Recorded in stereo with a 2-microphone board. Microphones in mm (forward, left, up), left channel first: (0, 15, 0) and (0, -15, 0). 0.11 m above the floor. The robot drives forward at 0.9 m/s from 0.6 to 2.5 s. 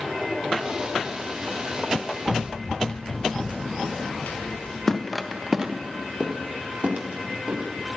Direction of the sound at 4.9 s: 15° left (ahead or behind).